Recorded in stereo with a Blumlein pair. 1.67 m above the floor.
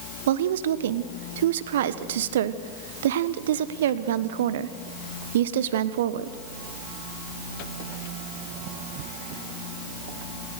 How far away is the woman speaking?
About 1.0 m.